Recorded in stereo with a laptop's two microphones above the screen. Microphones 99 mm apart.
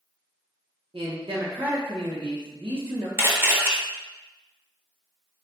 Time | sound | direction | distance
0.9 | a man speaking | 65° right (ahead or behind) | 0.9 m
3.2 | a camera shutter | 25° right (ahead or behind) | 0.7 m